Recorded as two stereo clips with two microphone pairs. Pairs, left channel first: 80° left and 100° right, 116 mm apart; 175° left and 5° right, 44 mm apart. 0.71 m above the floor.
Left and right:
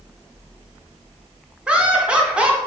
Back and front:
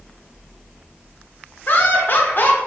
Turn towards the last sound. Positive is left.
turn(degrees=180)